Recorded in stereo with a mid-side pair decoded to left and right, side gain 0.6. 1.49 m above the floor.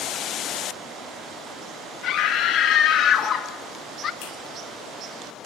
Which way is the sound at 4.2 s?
65° left.